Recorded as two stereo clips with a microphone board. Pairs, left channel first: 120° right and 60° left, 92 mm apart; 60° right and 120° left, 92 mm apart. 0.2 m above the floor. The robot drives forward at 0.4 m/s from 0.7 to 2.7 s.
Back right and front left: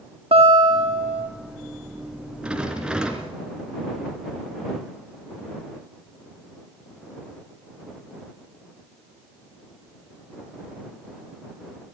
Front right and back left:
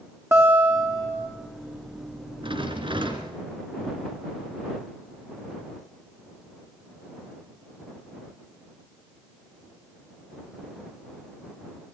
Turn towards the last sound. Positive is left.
turn(degrees=140)